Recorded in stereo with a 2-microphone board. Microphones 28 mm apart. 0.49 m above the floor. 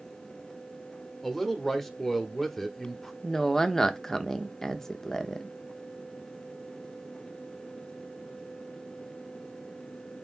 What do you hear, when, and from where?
1.2 s a man speaking: 5° left (ahead or behind), 1.0 m
3.2 s a woman speaking: 15° left (ahead or behind), 0.6 m